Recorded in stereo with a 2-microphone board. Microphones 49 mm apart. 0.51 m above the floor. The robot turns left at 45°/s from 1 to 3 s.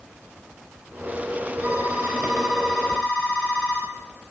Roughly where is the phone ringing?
Behind right.